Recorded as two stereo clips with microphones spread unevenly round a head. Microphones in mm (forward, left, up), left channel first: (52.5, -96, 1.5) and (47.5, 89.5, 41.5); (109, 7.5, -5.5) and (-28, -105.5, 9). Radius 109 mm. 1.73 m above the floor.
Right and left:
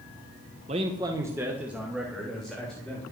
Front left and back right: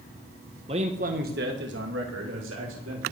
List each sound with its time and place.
0.7 s a man speaking: 150° left, 1.5 m; by 3.0 s 175° right, 4.5 m